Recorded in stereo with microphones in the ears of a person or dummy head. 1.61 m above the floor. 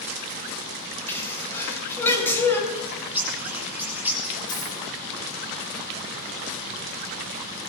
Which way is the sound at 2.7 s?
15° right (ahead or behind).